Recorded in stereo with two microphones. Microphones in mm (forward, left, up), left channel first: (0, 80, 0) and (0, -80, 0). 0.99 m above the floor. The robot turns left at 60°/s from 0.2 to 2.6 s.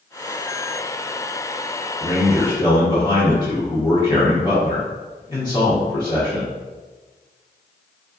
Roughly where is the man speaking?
Left.